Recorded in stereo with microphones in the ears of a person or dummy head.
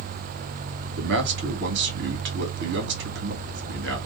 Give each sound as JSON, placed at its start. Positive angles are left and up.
{"t": 1.0, "sound": "a man speaking", "side_deg": -60, "distance_m": 1.1}